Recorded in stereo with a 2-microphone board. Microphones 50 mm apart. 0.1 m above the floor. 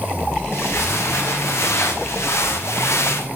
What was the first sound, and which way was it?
Footsteps, 65° left (ahead or behind).